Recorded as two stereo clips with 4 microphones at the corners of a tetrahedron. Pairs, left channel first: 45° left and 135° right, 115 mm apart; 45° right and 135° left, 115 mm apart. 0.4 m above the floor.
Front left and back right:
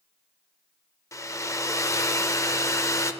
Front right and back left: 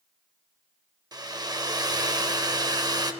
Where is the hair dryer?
100° left, 0.6 m.